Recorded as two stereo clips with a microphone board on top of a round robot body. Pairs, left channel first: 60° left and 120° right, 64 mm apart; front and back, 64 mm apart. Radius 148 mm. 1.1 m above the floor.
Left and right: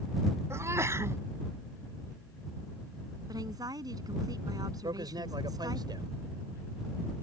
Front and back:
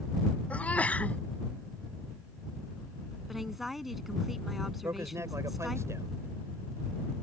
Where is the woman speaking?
90° right.